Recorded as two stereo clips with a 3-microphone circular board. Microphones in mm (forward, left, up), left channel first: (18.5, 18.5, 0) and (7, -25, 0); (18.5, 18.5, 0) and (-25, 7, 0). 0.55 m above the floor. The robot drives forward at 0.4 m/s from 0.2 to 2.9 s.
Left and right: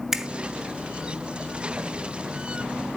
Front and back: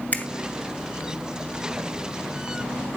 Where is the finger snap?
30° right, 1.2 m.